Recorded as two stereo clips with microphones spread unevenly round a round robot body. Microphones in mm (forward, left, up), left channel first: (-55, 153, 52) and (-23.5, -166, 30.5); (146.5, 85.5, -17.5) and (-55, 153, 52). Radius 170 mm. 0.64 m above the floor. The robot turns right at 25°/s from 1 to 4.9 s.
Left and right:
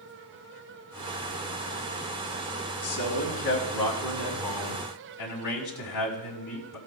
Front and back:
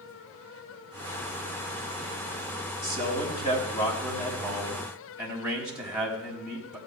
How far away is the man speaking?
About 4.5 m.